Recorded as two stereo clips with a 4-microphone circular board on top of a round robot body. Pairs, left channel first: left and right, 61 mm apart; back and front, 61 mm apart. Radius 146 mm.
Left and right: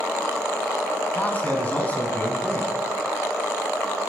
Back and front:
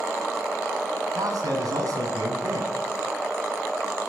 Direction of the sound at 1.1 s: 25° left.